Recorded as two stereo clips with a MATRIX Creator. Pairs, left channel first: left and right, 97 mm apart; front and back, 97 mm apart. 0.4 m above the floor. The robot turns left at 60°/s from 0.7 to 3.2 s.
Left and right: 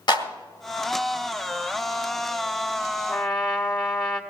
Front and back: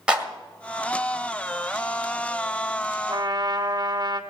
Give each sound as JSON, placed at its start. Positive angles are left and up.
{"t": 0.1, "sound": "a clap", "azimuth_deg": 105, "distance_m": 1.9}
{"t": 3.1, "sound": "a trumpet", "azimuth_deg": 175, "distance_m": 1.7}